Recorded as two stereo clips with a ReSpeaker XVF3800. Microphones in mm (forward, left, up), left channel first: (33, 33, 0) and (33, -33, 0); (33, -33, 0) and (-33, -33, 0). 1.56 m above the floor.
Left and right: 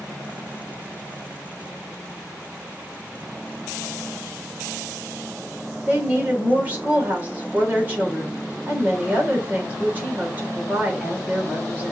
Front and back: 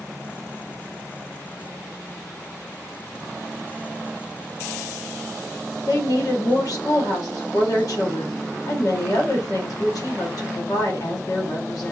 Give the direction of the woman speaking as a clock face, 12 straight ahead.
1 o'clock.